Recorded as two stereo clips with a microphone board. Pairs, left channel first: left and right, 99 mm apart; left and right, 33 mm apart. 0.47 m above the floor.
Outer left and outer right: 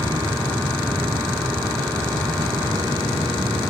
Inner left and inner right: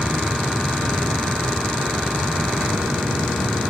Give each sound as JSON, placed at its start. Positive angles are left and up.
{"t": 0.0, "sound": "an aircraft", "side_deg": -45}